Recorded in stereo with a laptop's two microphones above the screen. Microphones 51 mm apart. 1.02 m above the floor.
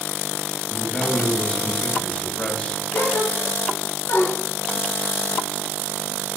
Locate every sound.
0.7 s a man speaking: 25° left (ahead or behind), 6 m
2.9 s a gasp: 70° left (ahead or behind), 5 m